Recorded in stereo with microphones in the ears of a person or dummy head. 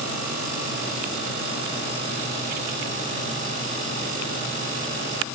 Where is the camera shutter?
I don't hear a camera shutter.